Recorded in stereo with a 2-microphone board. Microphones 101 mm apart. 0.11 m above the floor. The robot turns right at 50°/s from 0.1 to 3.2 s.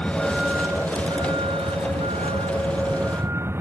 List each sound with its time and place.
0.0 s a vehicle: 10° left (ahead or behind); by 3.6 s 25° right (ahead or behind)